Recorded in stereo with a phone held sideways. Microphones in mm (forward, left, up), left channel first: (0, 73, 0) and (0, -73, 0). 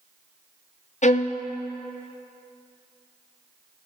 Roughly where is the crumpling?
I don't hear crumpling.